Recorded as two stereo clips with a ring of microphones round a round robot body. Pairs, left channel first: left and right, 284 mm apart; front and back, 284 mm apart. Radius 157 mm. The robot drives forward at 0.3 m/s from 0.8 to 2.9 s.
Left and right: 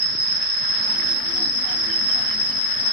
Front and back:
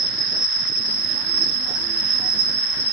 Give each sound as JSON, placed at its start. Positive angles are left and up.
{"t": 0.0, "sound": "an insect", "azimuth_deg": -140, "distance_m": 0.9}